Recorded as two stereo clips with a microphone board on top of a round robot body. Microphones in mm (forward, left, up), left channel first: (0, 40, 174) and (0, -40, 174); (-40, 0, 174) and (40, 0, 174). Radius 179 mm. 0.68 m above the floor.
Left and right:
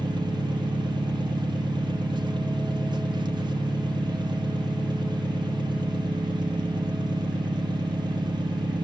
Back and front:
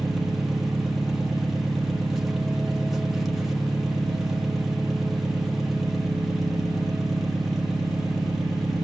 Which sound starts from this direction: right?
An engine running, at 0.0 s.